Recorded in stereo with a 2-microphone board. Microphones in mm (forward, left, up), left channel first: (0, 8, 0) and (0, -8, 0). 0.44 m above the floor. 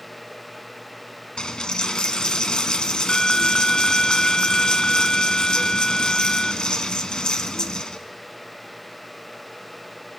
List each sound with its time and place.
1.4 s a dropped coin: 70° left (ahead or behind), 1.6 m